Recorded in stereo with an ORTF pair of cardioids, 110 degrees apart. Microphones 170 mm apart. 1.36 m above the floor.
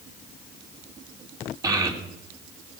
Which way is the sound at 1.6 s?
20° right.